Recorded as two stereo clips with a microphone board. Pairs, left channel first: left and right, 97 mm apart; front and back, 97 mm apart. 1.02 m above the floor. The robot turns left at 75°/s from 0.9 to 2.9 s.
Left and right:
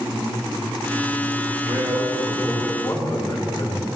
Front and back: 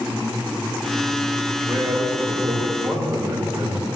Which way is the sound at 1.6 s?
120° right.